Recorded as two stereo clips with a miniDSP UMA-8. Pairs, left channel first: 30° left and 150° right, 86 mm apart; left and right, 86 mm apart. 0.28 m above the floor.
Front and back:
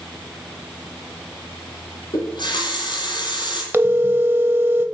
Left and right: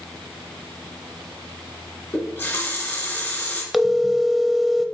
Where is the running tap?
20° left, 1.8 m.